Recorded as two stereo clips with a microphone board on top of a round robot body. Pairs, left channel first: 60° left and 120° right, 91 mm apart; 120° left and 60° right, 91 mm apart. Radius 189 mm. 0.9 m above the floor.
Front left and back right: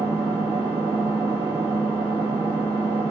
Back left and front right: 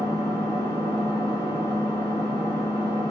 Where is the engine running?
110° right, 1.4 m.